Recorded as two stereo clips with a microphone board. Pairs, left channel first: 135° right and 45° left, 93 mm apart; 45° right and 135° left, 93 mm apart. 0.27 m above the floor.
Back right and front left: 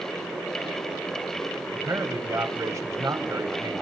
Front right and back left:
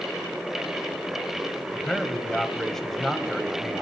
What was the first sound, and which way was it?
A man speaking, 40° left.